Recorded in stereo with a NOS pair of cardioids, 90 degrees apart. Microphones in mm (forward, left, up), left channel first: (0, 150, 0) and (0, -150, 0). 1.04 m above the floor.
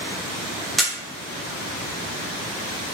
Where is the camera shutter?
Straight ahead, 0.7 m.